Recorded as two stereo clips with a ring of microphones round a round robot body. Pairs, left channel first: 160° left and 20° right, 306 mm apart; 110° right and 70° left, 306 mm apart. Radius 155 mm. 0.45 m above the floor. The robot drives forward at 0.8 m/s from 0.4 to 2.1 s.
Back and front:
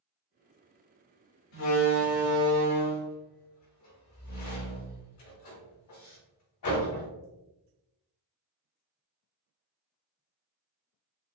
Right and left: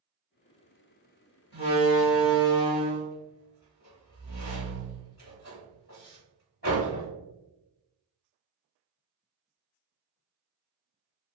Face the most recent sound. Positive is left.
turn(degrees=-170)